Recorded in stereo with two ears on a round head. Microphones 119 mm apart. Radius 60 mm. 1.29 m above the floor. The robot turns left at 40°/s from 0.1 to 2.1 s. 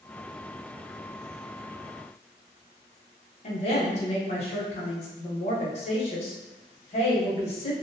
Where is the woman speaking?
55° left (ahead or behind), 0.9 m.